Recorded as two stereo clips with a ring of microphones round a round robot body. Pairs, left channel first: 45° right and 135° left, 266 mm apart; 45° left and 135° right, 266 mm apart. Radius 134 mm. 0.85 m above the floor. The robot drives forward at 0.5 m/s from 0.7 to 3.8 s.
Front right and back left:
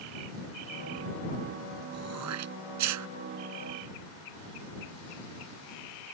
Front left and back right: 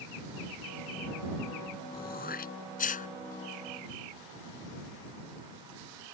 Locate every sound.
1.9 s throat clearing: 100° left; by 3.1 s 105° left